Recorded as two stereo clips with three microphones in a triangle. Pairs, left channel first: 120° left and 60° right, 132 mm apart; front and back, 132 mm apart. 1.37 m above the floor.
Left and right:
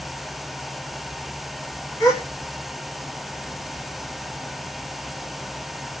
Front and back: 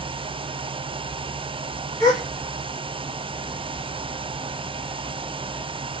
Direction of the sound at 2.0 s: 55° left.